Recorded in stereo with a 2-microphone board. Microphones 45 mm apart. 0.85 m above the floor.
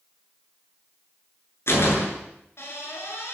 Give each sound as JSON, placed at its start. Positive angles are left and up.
{"t": 1.7, "sound": "a door slam", "side_deg": 65, "distance_m": 8.0}